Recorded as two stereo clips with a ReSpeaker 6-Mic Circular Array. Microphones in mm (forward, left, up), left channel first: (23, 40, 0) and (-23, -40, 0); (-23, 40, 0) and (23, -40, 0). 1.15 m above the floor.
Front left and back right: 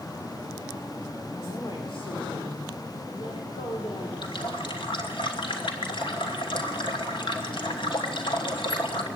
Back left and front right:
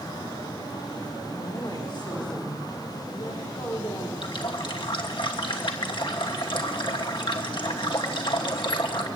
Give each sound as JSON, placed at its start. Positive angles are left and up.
{"t": 1.3, "sound": "a woman speaking", "azimuth_deg": 90, "distance_m": 4.5}
{"t": 4.2, "sound": "a running tap", "azimuth_deg": 90, "distance_m": 2.5}